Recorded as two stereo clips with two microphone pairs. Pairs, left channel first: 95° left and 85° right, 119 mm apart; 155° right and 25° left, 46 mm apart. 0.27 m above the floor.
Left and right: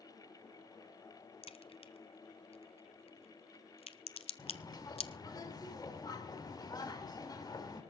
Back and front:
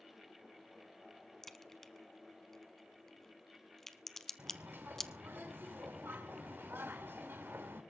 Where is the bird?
50° left, 3 m.